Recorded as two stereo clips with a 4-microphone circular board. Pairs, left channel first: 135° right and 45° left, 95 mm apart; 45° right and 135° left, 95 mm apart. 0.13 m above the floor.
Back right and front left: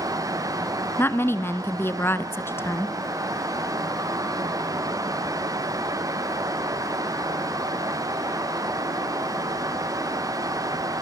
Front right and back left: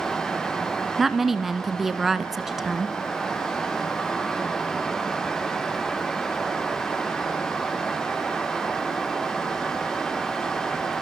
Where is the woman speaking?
140° right, 1.1 m.